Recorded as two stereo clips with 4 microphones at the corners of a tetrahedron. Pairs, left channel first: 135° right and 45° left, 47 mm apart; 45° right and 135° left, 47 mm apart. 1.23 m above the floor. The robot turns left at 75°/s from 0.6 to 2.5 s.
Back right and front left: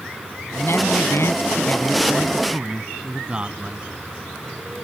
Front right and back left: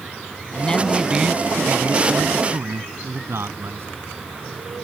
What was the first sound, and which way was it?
A man speaking, 105° right.